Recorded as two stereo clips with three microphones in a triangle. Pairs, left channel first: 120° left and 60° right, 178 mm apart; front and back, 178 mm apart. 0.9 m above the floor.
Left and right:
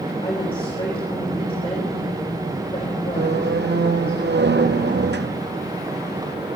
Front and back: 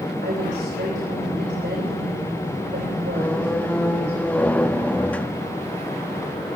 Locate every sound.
0.2 s a woman speaking: 175° left, 4 m
3.1 s a squeak: 80° right, 0.6 m